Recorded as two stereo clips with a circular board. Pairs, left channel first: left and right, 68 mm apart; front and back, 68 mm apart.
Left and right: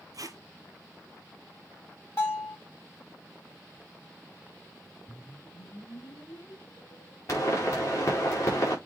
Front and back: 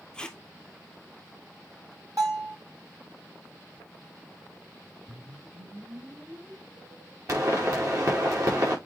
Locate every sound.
0.1 s tape being pulled: 75° right, 0.9 m
2.2 s a bell: 140° left, 6 m
5.1 s a whoosh: 135° left, 3 m
7.3 s a pop: 135° left, 5 m